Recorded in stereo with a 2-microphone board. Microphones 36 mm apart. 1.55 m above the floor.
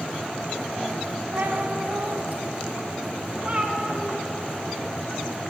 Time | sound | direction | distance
1.3 | a cat meowing | 65° right (ahead or behind) | 3 m